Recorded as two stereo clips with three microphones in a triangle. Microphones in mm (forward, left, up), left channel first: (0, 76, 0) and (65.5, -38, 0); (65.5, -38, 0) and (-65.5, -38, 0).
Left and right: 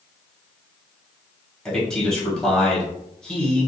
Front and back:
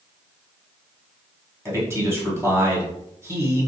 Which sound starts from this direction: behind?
A man speaking, at 1.6 s.